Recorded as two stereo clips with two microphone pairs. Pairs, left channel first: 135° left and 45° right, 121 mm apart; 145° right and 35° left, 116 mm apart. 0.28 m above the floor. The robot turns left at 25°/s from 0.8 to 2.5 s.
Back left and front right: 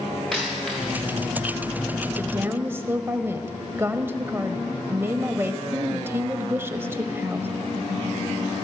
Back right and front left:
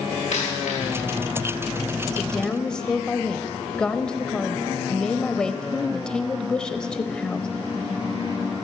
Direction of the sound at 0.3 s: 140° right.